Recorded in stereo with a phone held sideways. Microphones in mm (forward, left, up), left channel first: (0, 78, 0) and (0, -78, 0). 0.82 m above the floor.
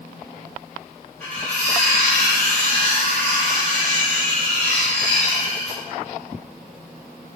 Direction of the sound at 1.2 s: 10° left (ahead or behind).